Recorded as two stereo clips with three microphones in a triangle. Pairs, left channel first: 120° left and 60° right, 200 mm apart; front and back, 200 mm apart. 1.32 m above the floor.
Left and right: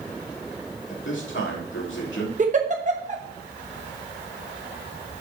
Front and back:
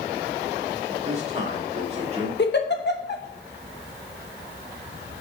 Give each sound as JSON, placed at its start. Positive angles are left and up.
{"t": 0.9, "sound": "a man speaking", "azimuth_deg": 125, "distance_m": 3.0}
{"t": 2.4, "sound": "a giggle", "azimuth_deg": -15, "distance_m": 0.9}